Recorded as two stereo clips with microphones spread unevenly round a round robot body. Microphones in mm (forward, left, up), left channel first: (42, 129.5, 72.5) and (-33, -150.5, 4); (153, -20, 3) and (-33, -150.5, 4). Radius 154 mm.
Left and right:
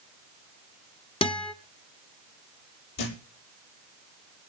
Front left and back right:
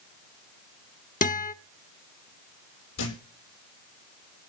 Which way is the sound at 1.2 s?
5° right.